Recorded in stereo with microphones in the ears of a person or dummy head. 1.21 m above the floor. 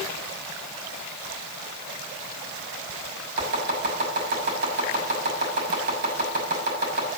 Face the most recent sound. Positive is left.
turn(degrees=-65)  # may be behind; listen again after turning